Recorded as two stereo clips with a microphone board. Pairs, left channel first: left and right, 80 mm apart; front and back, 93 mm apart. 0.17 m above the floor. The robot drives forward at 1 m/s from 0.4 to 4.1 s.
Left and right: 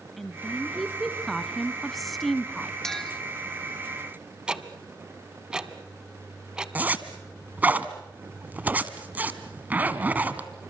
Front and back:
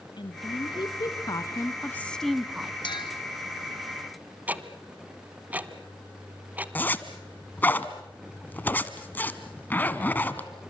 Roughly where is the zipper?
Ahead right.